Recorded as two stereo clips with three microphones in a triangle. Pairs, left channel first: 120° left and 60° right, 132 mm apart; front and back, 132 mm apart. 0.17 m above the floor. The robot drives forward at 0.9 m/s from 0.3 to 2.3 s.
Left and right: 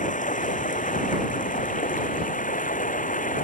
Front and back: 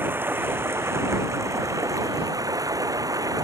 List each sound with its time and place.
0.0 s running water: 105° left; by 3.4 s 115° left